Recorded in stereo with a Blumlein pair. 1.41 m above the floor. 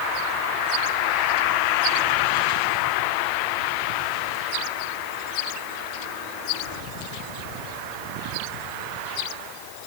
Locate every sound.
Only background noise.